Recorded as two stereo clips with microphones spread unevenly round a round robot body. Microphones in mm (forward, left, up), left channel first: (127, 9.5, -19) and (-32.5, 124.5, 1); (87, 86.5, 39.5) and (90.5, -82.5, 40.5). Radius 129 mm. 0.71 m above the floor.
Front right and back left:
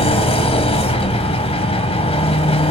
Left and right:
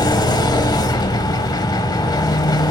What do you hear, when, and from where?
0.0 s an engine running: 25° left, 1.1 m